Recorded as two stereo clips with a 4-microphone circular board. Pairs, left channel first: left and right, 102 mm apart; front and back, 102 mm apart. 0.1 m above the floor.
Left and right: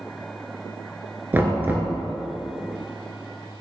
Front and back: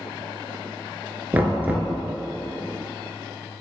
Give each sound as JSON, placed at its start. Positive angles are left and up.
{"t": 1.3, "sound": "knocking", "azimuth_deg": -130, "distance_m": 0.9}